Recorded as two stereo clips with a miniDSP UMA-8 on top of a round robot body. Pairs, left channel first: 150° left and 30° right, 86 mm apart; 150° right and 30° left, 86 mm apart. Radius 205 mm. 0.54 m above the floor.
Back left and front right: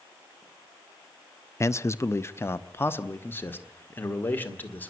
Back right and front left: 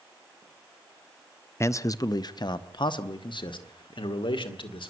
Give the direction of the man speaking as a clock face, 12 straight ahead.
6 o'clock.